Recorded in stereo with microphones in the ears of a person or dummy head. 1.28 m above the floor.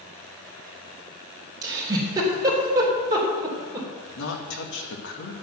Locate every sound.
1.6 s a giggle: 15° right (ahead or behind), 3.5 m
4.2 s a woman speaking: 65° left (ahead or behind), 2.0 m